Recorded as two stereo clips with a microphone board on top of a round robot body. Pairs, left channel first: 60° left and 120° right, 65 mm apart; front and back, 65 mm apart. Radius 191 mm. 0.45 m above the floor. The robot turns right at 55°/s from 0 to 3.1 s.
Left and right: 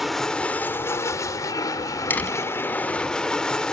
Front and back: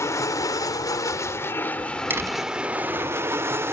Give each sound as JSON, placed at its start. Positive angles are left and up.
{"t": 0.0, "sound": "an aircraft", "azimuth_deg": -35}
{"t": 2.1, "sound": "a door slam", "azimuth_deg": 120}